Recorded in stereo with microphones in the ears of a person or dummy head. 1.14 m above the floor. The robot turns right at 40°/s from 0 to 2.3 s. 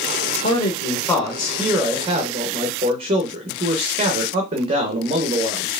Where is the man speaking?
140° left, 0.8 m; by 5.7 s 145° right, 0.8 m.